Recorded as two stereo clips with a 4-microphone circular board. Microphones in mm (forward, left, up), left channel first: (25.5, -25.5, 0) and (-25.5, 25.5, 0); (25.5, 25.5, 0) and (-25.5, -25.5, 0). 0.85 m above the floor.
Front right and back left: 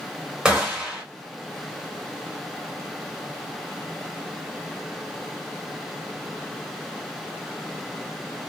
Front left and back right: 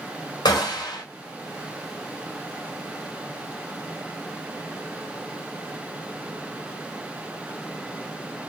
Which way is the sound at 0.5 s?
55° left.